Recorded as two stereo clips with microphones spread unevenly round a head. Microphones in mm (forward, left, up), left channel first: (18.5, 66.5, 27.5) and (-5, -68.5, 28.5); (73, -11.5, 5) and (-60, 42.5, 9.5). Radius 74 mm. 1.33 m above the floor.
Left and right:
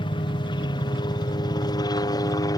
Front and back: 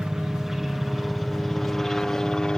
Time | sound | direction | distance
0.0 | a helicopter | 75° left | ?